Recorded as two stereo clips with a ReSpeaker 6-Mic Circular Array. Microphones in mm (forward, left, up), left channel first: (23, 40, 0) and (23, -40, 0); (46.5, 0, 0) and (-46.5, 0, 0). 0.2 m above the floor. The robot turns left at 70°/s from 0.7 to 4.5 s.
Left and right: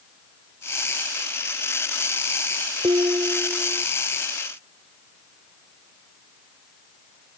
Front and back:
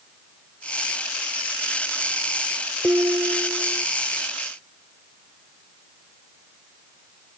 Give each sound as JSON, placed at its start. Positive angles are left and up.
{"t": 2.8, "sound": "dishes clattering", "azimuth_deg": -105}